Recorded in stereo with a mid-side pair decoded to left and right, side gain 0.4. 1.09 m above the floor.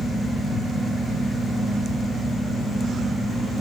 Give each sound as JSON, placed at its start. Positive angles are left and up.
{"t": 0.0, "sound": "a fan", "azimuth_deg": -40, "distance_m": 4.5}